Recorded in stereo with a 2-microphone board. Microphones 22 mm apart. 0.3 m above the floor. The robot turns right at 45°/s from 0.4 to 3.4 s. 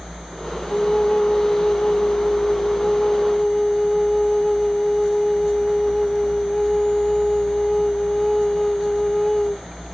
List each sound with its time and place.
0.7 s a flute: 50° left, 0.7 m; by 9.6 s 170° left, 0.7 m